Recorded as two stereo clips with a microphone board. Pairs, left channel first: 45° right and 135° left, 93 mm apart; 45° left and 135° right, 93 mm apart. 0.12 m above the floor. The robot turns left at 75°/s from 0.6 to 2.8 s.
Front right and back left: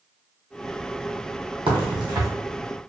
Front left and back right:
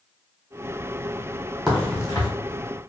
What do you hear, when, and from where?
1.7 s a crack: 135° left, 1.4 m; by 2.3 s 90° left, 1.4 m